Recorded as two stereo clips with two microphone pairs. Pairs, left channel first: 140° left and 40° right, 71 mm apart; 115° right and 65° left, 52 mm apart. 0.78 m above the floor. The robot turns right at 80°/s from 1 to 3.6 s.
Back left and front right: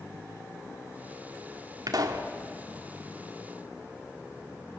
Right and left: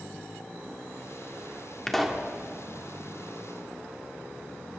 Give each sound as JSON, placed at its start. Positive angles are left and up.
{"t": 1.9, "sound": "a pop", "azimuth_deg": -40, "distance_m": 1.6}